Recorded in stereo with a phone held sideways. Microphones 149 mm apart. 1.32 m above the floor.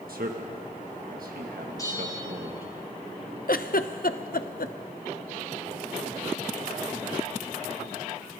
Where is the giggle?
75° left (ahead or behind), 0.7 m.